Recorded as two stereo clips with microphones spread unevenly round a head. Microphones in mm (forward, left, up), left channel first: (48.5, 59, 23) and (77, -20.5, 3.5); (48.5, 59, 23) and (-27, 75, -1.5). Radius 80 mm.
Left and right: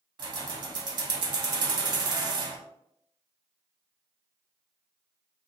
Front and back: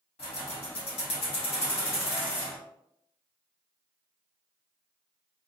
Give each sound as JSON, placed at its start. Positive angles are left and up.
{"t": 0.2, "sound": "keys jangling", "azimuth_deg": -50, "distance_m": 0.7}